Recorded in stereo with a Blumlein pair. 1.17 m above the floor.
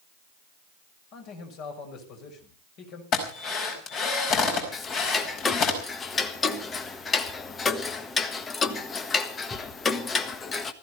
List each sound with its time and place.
1.1 s a man speaking: 40° left, 5.5 m
3.1 s a drill: 35° left, 5 m
4.7 s ticking: 20° left, 1.4 m